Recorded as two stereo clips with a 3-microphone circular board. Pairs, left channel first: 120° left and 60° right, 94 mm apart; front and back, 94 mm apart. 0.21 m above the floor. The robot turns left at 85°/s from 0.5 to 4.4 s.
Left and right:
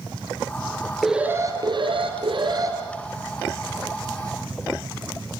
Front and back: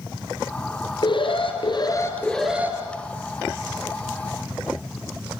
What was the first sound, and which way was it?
An alarm, 25° left.